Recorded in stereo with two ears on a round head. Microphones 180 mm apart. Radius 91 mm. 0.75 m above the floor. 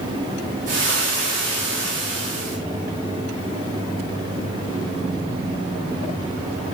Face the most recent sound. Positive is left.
turn(degrees=-40)  # may be behind; listen again after turning